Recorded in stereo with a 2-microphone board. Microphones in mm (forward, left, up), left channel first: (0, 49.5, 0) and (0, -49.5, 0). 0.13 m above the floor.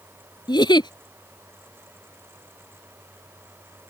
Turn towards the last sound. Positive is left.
turn(degrees=50)  # may be behind; listen again after turning